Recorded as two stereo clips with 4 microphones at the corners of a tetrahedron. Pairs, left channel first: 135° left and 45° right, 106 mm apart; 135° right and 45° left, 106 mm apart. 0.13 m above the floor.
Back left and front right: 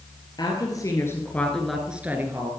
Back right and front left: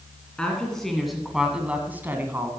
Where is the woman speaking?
145° left, 2.0 m; by 2.5 s 5° right, 1.7 m.